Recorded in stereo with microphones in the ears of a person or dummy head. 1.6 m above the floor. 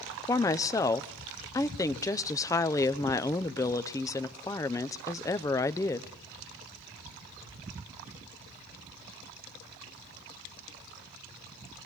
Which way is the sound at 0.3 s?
20° left (ahead or behind).